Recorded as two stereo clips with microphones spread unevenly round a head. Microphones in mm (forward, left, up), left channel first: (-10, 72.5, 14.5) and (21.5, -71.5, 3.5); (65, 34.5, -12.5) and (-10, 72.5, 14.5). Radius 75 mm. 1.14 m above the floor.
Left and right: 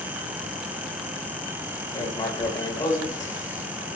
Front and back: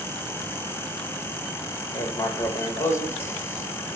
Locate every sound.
1.9 s writing: 35° left, 3 m